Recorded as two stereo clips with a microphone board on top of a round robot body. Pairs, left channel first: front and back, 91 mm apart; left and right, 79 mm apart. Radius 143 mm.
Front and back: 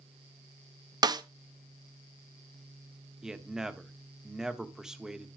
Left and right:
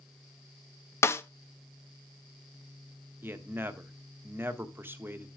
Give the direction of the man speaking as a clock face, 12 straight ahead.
3 o'clock.